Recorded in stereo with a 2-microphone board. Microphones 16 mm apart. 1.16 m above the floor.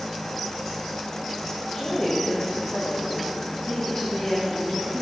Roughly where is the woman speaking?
Centre.